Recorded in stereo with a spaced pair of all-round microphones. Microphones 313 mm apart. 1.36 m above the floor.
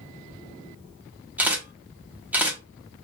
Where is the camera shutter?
5° right (ahead or behind), 0.9 m.